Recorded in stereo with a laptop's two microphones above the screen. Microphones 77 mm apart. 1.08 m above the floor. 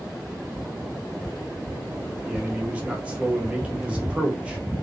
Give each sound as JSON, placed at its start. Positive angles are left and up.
{"t": 2.3, "sound": "a man speaking", "side_deg": -15, "distance_m": 0.7}